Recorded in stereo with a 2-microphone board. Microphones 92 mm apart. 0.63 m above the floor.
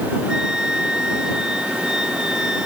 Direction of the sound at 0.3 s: 10° right (ahead or behind).